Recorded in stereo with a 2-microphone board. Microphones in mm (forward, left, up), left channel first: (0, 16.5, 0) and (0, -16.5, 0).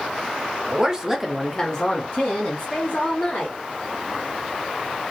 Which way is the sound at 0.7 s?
30° right (ahead or behind).